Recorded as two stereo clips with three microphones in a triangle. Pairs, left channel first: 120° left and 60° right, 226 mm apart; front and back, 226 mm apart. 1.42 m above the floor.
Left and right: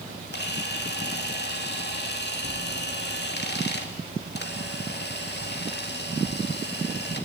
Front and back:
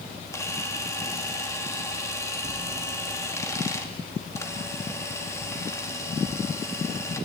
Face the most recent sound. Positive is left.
turn(degrees=75)